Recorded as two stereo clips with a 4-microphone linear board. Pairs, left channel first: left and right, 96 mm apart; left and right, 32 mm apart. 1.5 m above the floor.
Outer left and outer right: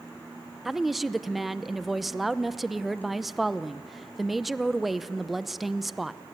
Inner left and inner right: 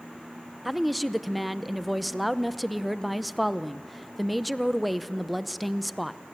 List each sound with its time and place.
0.7 s a woman speaking: centre (ahead or behind), 0.7 m